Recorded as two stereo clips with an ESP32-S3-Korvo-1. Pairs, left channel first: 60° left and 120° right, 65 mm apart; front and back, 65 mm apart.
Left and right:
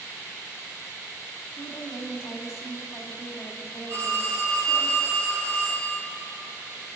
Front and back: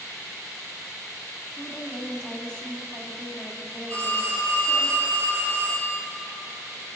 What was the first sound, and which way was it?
A woman speaking, 70° left.